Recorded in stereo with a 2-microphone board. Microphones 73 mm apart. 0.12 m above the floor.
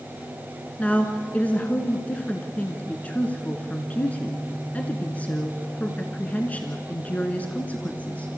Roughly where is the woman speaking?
Centre.